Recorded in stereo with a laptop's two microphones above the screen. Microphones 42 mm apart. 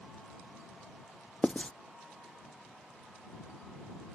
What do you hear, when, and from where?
1.4 s writing: 25° left (ahead or behind)